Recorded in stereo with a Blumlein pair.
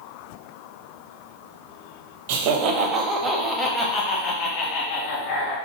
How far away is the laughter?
About 0.9 m.